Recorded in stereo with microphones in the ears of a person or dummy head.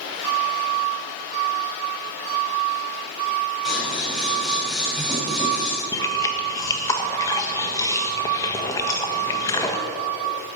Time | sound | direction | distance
3.6 | scissors | 5° right (ahead or behind) | 5.5 m
5.9 | chewing | 15° left (ahead or behind) | 1.4 m